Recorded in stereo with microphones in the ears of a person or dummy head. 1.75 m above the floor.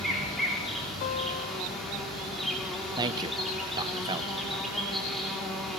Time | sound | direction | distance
0.0 | an insect | centre (ahead or behind) | 6.5 m
1.0 | a guitar | 50° left (ahead or behind) | 3.5 m
3.0 | a man speaking | 20° right (ahead or behind) | 1.3 m